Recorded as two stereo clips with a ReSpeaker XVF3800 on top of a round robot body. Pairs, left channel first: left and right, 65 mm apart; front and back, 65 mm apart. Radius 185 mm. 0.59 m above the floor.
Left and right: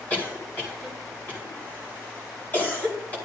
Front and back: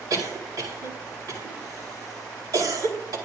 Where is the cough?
155° left, 4.5 m.